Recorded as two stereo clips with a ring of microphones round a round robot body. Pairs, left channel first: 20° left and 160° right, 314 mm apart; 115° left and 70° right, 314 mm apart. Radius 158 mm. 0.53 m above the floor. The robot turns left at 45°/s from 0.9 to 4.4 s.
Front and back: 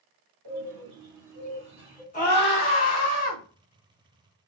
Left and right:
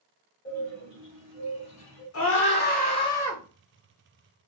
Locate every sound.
0.5 s a bird: 165° left, 1.6 m; by 2.0 s 115° left, 1.6 m
2.1 s a scream: 85° left, 1.2 m; by 3.4 s 25° left, 1.2 m